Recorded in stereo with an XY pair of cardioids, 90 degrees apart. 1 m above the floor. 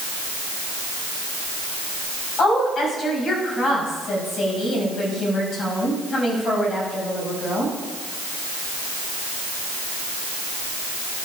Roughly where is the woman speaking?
Ahead left.